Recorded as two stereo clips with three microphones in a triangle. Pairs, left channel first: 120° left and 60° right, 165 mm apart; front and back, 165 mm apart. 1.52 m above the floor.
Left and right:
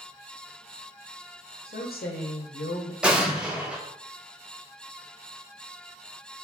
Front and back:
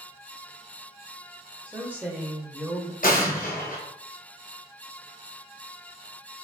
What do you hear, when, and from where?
1.7 s a woman speaking: 100° left, 0.7 m
3.0 s an explosion: 25° left, 0.8 m